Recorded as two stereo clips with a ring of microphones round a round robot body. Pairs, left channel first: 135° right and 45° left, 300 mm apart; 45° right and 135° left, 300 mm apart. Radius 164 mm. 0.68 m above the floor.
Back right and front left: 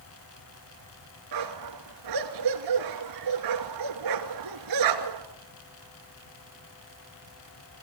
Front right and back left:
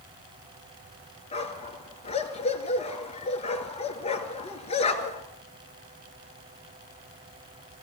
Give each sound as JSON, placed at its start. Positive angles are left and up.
{"t": 1.3, "sound": "a dog barking", "azimuth_deg": 25, "distance_m": 2.5}